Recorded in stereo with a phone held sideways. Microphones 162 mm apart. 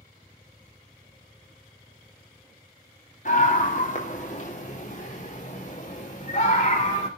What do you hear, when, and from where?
3.2 s a scream: 55° left (ahead or behind), 3 m; by 7.1 s 50° left (ahead or behind), 5 m